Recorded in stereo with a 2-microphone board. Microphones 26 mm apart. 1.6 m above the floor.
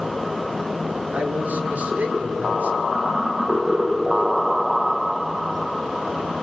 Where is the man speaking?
85° right, 5.5 m.